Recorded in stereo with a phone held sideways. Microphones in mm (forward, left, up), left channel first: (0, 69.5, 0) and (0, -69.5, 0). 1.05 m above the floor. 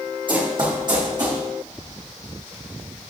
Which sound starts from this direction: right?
Running footsteps, at 0.3 s.